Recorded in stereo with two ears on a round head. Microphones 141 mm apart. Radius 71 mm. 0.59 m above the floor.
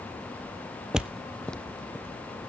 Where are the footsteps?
5° right (ahead or behind), 0.6 m; by 2.5 s 10° left (ahead or behind), 2 m.